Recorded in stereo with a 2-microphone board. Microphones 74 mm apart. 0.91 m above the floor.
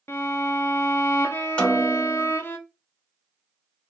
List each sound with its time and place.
0.1 s a violin: 30° left (ahead or behind), 0.6 m
1.6 s a snare drum: 10° left (ahead or behind), 1.0 m